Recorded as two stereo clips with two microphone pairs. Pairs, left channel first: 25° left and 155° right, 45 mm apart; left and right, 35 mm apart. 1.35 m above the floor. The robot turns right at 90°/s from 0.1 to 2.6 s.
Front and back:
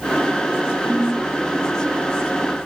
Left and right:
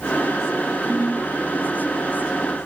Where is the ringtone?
60° left, 0.9 m; by 1.3 s 95° left, 0.9 m.